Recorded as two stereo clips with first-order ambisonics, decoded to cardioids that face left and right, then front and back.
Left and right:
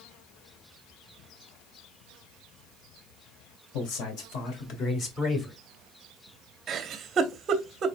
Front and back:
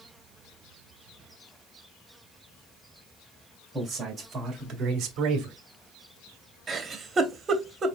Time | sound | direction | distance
3.7 | a man speaking | 105° left | 2.5 m
6.7 | a giggle | 120° right | 0.7 m